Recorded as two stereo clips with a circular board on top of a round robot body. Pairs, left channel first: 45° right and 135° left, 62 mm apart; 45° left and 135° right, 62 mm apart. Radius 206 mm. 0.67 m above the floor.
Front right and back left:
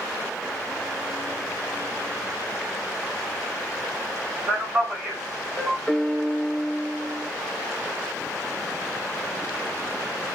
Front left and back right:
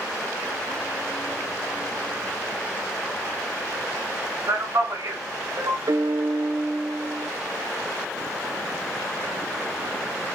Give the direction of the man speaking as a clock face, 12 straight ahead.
6 o'clock.